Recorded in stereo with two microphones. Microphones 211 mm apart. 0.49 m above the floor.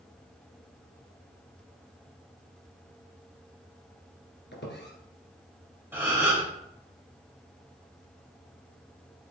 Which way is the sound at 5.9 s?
10° right (ahead or behind).